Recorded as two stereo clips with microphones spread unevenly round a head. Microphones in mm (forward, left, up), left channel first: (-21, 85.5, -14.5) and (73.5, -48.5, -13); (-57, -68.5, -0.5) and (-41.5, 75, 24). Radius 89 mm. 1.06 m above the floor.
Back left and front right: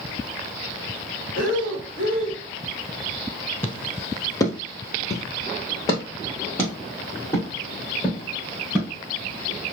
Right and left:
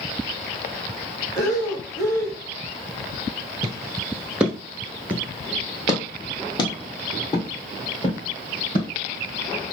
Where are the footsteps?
55° left, 1.2 m; by 8.9 s 155° right, 4 m.